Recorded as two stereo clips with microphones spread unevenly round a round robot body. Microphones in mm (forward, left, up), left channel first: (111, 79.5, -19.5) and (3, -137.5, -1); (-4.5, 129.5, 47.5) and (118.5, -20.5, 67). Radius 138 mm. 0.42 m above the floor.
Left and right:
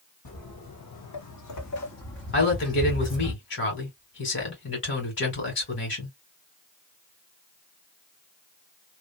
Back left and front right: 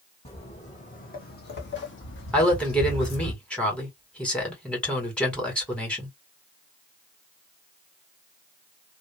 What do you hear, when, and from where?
0.2 s footsteps: 70° left, 1.4 m; by 3.3 s 140° left, 1.3 m
2.3 s a woman speaking: 50° left, 2 m